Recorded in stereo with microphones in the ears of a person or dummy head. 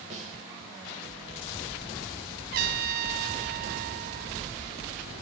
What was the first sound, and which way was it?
A snare drum, 45° right (ahead or behind).